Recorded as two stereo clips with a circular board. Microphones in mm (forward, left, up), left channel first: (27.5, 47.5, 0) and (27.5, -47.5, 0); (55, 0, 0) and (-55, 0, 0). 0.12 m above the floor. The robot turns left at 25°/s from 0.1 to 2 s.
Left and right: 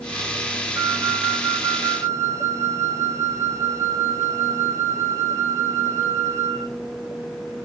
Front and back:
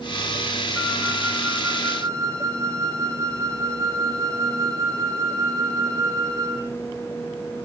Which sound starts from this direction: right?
A flute, at 0.8 s.